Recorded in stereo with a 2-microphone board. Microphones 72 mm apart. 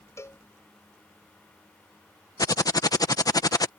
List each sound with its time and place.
0.2 s a cowbell: 40° left (ahead or behind)
2.4 s typing on a keyboard: 55° left (ahead or behind)